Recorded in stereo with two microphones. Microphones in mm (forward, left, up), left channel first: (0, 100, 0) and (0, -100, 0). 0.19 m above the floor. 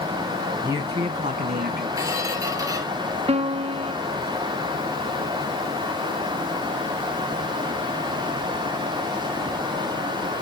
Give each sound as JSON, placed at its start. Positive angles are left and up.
{"t": 0.6, "sound": "a man speaking", "side_deg": -10, "distance_m": 1.3}
{"t": 2.0, "sound": "a squeak", "side_deg": -15, "distance_m": 2.5}
{"t": 3.3, "sound": "a piano", "side_deg": -30, "distance_m": 0.6}